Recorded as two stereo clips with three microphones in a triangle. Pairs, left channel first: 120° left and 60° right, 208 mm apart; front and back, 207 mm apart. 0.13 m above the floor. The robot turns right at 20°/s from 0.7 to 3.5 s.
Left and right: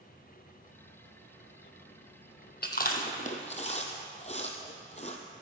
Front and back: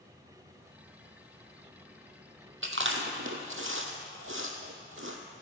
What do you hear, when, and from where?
2.6 s chewing: 160° left, 1.1 m; by 5.2 s straight behind, 1.1 m